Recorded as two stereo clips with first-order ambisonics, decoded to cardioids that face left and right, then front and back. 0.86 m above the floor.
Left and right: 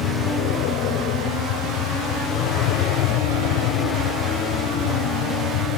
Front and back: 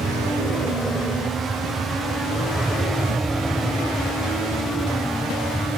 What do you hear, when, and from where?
0.0 s an aircraft: 110° left; by 5.8 s 85° left